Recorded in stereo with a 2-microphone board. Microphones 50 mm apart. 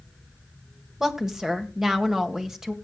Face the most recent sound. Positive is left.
turn(degrees=-10)  # may be behind; listen again after turning